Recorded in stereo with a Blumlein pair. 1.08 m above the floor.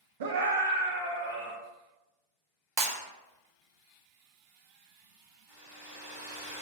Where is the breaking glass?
40° right, 0.7 m.